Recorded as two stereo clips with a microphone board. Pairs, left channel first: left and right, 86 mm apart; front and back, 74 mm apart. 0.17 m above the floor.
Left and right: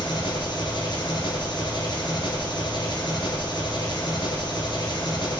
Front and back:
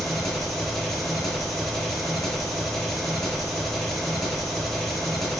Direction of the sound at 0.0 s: 85° left.